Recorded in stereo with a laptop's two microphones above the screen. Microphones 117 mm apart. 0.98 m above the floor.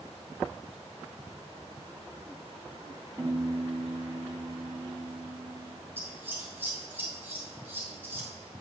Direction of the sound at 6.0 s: 20° right (ahead or behind).